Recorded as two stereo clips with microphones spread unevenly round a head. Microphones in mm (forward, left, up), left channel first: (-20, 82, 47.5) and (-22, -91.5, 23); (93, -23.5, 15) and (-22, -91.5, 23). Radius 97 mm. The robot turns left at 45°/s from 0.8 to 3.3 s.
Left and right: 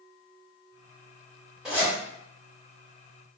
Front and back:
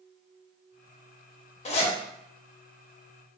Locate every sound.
1.6 s a zipper: straight ahead, 0.6 m; by 1.9 s 10° right, 0.6 m